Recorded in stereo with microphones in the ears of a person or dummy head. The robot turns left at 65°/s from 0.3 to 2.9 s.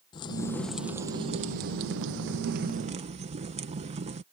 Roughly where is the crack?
Ahead left.